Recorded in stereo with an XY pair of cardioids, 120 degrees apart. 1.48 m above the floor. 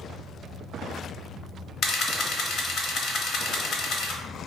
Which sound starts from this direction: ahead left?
A camera shutter, at 1.8 s.